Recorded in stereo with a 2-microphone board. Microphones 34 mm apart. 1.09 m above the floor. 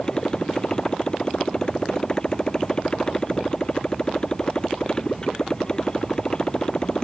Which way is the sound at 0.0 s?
20° left (ahead or behind).